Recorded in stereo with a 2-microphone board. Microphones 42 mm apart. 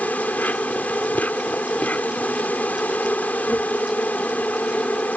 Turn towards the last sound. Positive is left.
turn(degrees=40)  # may be behind; listen again after turning